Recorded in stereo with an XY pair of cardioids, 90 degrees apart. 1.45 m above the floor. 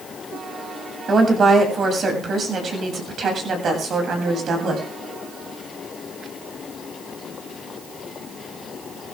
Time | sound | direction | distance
1.1 | a woman speaking | 50° right | 7.5 m